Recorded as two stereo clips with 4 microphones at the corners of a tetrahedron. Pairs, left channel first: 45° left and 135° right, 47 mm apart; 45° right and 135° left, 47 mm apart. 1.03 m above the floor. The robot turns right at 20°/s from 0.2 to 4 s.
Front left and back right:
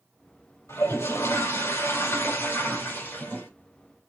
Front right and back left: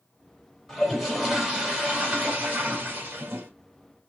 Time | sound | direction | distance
0.7 | a toilet flushing | 45° left | 2.5 m